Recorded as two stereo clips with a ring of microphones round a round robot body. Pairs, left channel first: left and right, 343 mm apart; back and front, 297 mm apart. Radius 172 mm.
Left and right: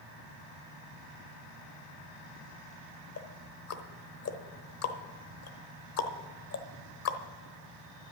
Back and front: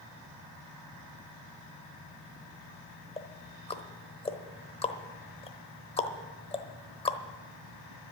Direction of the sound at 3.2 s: 115° left.